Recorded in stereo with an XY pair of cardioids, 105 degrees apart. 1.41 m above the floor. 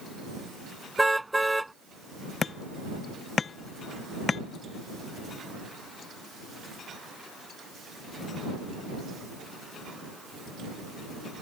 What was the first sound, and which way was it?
A car horn, 10° right.